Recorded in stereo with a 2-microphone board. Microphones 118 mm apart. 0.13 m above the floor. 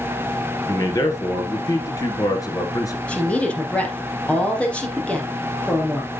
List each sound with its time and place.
0.7 s a man speaking: 30° left (ahead or behind), 1.9 m
3.1 s a woman speaking: 10° left (ahead or behind), 3 m